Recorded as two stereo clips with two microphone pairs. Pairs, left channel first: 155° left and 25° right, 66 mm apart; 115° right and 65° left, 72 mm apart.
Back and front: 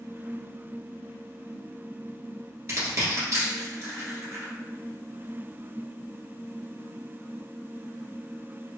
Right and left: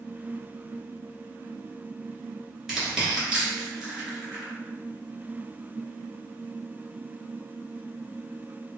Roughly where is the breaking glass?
I don't hear breaking glass.